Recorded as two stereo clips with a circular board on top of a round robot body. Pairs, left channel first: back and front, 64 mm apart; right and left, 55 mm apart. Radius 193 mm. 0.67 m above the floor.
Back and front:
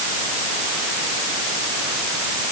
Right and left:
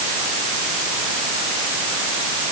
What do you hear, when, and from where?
Only background noise.